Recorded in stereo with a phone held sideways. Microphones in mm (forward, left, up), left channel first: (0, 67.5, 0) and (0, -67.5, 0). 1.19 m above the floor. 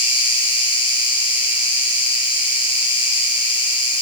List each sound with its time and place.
0.0 s an insect: 40° left (ahead or behind), 3.5 m